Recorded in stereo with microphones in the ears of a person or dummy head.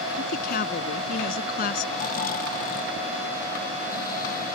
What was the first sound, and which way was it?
A woman speaking, 50° left (ahead or behind).